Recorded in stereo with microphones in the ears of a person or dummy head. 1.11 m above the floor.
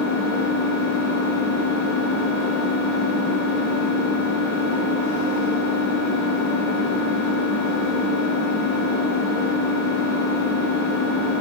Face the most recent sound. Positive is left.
turn(degrees=-50)  # may be behind; listen again after turning